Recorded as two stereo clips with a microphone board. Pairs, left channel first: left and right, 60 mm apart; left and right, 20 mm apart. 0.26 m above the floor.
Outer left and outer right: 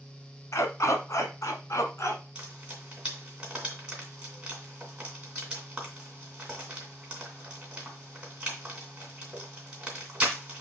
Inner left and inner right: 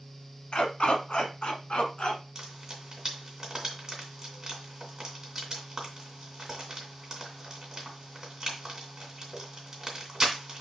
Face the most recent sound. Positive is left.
turn(degrees=-20)  # may be behind; listen again after turning